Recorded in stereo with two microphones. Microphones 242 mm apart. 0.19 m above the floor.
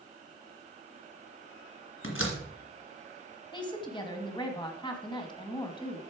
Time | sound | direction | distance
2.0 | a door slam | 60° left (ahead or behind) | 2 m
3.5 | a woman speaking | 20° left (ahead or behind) | 1.4 m